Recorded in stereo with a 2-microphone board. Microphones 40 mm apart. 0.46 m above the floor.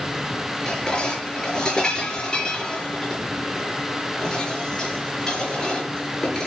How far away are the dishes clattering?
About 5.5 m.